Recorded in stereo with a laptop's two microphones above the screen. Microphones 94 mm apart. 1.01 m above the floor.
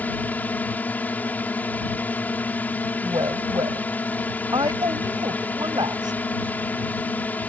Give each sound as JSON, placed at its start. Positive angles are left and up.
{"t": 0.0, "sound": "a drone", "side_deg": 20}
{"t": 3.0, "sound": "a woman speaking", "side_deg": -50}